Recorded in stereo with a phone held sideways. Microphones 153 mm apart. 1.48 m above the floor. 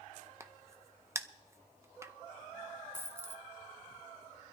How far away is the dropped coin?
About 0.7 m.